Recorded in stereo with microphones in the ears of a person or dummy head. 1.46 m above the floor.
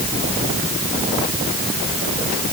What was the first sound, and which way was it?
Only background noise.